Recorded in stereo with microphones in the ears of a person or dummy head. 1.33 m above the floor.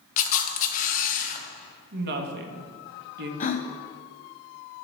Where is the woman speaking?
65° right (ahead or behind), 1.3 m.